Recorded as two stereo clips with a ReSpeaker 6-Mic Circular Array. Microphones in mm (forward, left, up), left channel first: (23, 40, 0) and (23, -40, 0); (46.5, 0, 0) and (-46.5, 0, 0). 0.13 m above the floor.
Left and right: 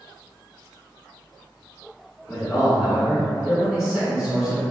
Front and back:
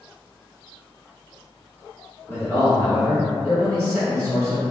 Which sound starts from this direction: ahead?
A man speaking, at 2.3 s.